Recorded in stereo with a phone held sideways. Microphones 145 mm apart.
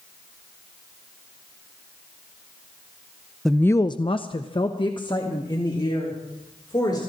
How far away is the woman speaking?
About 0.6 m.